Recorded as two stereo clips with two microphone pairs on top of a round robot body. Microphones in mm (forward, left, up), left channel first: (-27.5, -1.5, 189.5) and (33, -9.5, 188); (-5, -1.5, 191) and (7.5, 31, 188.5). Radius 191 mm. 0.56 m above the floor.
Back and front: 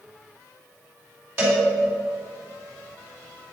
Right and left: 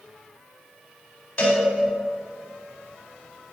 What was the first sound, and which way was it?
A cowbell, 60° right.